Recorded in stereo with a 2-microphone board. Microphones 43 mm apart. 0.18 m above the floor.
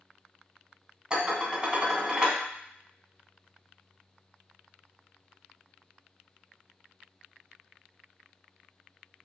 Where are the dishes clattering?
20° right (ahead or behind), 0.8 m.